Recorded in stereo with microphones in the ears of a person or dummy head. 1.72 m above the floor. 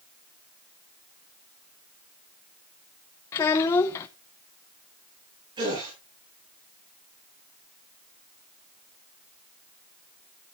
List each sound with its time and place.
3.3 s a child speaking: 15° left (ahead or behind), 0.8 m
5.6 s a gasp: 25° right (ahead or behind), 10 m